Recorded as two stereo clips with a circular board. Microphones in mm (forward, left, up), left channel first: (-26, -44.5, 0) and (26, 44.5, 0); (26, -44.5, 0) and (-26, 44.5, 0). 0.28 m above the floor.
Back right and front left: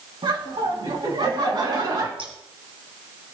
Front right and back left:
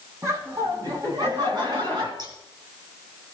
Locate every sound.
0.2 s laughter: 70° left, 3 m; by 2.1 s 95° left, 3.5 m
2.2 s scissors: 80° left, 1.8 m